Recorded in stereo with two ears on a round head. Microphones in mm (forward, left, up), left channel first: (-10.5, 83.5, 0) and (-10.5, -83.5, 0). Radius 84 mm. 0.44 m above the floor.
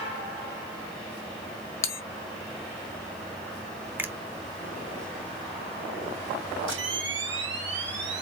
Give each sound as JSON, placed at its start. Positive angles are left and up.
{"t": 1.8, "sound": "a bell", "side_deg": 15, "distance_m": 0.9}
{"t": 4.0, "sound": "a finger snap", "side_deg": -10, "distance_m": 0.8}
{"t": 6.7, "sound": "a camera shutter", "side_deg": -70, "distance_m": 3.5}